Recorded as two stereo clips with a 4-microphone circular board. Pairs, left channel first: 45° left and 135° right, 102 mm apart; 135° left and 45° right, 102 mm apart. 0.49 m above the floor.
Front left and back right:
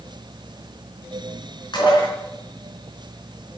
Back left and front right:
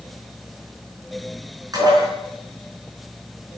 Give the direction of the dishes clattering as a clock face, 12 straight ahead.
12 o'clock.